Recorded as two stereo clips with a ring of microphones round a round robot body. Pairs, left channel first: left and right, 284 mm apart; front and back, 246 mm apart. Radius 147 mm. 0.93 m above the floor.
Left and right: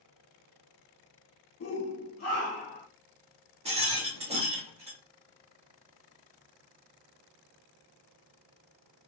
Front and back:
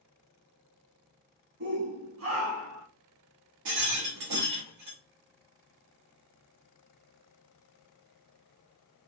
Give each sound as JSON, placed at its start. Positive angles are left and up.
{"t": 1.6, "sound": "a shout", "azimuth_deg": 140, "distance_m": 1.3}
{"t": 3.6, "sound": "a rattle", "azimuth_deg": -160, "distance_m": 1.3}